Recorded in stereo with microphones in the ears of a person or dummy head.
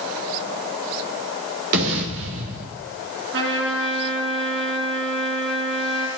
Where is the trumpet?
65° right (ahead or behind), 5.5 m.